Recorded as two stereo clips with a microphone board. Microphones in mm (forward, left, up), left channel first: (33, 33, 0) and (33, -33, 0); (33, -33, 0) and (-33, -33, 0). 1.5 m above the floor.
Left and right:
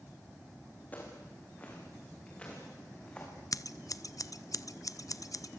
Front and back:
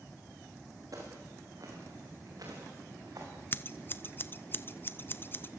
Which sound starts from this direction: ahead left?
Scissors, at 3.5 s.